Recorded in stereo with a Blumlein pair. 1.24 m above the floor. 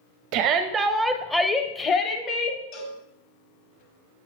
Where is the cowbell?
35° left, 1.3 m.